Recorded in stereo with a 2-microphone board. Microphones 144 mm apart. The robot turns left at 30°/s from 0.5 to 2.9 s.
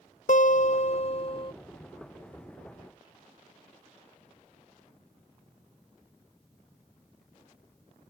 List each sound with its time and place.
0.3 s a guitar: 70° left; by 1.5 s 40° left